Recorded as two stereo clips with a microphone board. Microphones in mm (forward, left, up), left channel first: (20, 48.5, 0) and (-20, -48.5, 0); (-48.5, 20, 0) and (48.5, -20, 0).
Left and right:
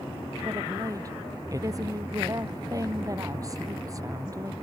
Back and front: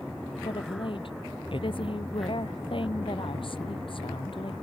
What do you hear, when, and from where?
0.4 s a woman speaking: 170° right